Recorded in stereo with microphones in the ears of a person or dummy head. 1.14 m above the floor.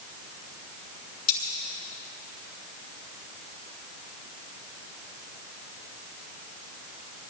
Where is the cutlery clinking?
35° left (ahead or behind), 5 m.